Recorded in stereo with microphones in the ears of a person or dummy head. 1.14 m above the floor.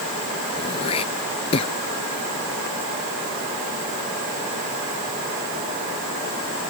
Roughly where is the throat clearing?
Left.